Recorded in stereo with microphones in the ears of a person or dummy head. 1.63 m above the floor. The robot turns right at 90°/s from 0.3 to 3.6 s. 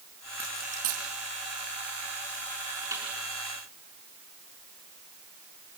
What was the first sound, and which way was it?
A dropped coin, 5° right (ahead or behind).